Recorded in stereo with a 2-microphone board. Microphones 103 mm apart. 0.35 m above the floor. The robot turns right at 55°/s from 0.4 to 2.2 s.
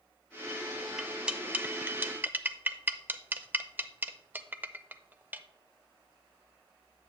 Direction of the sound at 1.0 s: 5° right (ahead or behind).